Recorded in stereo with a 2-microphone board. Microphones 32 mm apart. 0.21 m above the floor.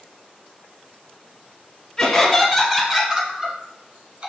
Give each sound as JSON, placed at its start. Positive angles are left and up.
{"t": 2.0, "sound": "laughter", "side_deg": 15, "distance_m": 1.3}